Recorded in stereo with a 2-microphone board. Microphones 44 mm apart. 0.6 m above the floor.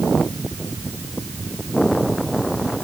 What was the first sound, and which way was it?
Only background noise.